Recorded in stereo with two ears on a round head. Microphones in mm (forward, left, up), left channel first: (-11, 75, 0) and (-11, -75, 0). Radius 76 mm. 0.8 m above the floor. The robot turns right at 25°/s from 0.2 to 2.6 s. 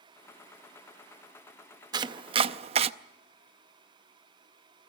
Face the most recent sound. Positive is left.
turn(degrees=-40)  # may be behind; listen again after turning